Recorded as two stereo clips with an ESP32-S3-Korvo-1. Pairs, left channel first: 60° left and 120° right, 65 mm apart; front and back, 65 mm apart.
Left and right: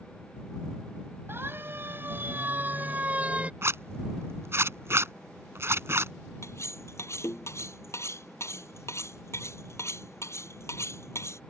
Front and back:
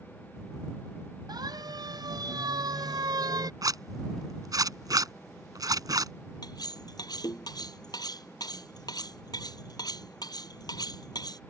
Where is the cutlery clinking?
15° left.